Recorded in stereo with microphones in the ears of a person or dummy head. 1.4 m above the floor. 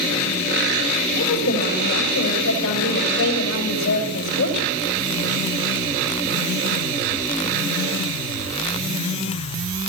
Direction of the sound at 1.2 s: 85° left.